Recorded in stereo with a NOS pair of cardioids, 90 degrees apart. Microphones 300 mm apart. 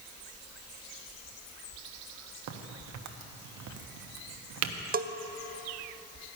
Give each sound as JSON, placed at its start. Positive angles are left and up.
{"t": 2.5, "sound": "a crack", "azimuth_deg": -70, "distance_m": 1.0}
{"t": 4.9, "sound": "a bell", "azimuth_deg": -30, "distance_m": 0.7}